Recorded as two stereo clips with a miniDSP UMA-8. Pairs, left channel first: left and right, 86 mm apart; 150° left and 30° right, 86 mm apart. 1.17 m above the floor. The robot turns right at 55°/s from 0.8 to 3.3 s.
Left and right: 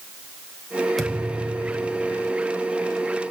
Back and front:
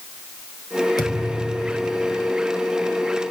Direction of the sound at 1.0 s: 175° left.